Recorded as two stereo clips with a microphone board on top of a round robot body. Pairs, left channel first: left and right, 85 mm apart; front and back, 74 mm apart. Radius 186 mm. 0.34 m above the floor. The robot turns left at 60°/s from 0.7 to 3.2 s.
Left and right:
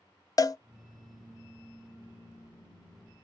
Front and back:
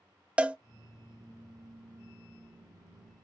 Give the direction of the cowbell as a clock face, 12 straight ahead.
8 o'clock.